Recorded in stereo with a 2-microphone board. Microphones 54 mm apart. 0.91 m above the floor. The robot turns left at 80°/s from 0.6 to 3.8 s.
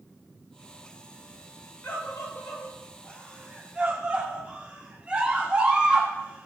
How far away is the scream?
About 1.8 m.